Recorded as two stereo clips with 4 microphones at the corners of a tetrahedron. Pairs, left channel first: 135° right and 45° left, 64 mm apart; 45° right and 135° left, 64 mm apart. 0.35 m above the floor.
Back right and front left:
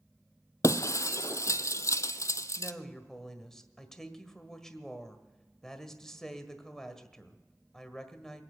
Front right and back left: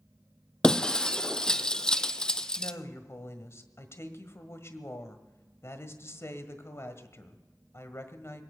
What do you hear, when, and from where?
0.6 s breaking glass: 120° right, 0.5 m
2.6 s a woman speaking: 55° right, 1.5 m